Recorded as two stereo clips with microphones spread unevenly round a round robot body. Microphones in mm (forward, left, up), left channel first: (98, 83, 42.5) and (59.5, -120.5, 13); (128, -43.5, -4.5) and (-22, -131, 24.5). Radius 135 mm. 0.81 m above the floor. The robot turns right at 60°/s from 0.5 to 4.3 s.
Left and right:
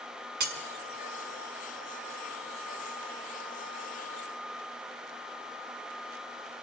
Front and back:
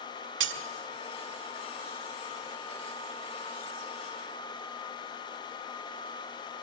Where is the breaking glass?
155° right, 1.5 m; by 0.6 s 150° right, 1.5 m.